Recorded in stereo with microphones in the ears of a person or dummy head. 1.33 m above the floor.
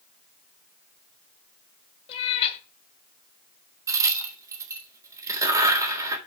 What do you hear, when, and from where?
2.1 s a cat meowing: 35° left (ahead or behind), 2.5 m
3.9 s a crack: 15° right (ahead or behind), 3.5 m